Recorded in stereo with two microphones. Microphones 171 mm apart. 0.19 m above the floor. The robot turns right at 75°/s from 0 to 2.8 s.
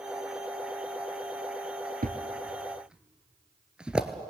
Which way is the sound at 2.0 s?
60° right (ahead or behind).